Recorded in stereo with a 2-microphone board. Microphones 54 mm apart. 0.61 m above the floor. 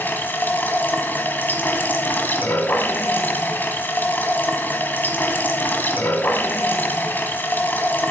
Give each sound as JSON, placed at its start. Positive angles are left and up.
{"t": 0.0, "sound": "running water", "side_deg": 35, "distance_m": 1.3}